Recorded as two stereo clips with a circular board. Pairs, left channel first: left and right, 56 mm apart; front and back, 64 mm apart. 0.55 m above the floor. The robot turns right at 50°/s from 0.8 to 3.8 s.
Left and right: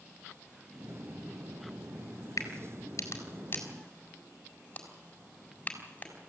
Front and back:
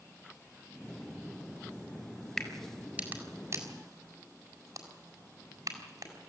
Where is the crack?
80° left, 4.5 m; by 6.3 s 155° left, 4.5 m.